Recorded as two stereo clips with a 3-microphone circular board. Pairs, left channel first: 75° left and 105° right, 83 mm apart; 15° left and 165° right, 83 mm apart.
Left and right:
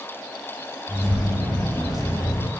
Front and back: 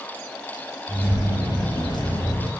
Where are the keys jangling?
15° right, 2.5 m; by 2.5 s 55° left, 1.8 m.